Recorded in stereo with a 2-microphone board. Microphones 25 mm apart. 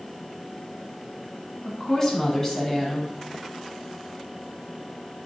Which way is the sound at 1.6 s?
20° left (ahead or behind).